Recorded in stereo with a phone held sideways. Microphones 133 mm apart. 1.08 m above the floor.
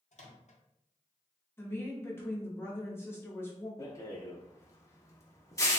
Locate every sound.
0.1 s a microwave: 60° left (ahead or behind), 0.6 m
1.6 s a woman speaking: 20° left (ahead or behind), 0.7 m
3.8 s a rattle: 25° left (ahead or behind), 0.6 m